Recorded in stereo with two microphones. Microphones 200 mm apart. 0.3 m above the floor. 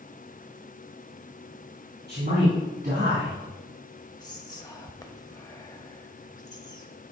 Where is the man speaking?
55° right (ahead or behind), 2.5 m; by 3.3 s 40° right (ahead or behind), 3 m.